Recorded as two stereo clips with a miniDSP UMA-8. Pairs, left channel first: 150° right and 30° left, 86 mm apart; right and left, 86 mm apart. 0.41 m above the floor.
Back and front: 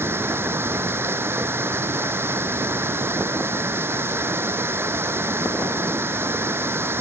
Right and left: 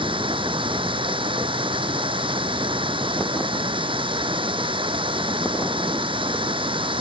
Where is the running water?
95° left.